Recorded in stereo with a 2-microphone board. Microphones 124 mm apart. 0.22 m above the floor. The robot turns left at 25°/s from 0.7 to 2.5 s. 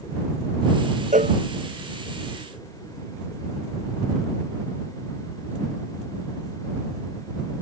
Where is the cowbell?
85° right; by 1.4 s 80° right.